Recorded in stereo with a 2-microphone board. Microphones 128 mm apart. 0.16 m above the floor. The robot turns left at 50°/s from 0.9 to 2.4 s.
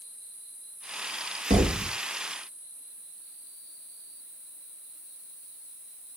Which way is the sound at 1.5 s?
65° right (ahead or behind).